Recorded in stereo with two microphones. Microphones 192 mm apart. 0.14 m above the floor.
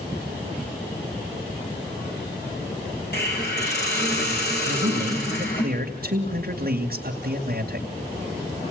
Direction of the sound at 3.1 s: 60° left (ahead or behind).